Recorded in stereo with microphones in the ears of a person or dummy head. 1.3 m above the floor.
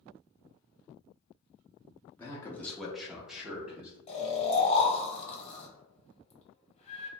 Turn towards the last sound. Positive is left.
turn(degrees=30)  # may be behind; listen again after turning